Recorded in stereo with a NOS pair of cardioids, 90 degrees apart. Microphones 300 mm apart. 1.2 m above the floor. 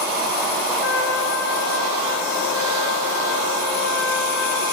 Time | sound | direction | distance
0.8 | a trumpet | 45° left | 1.1 m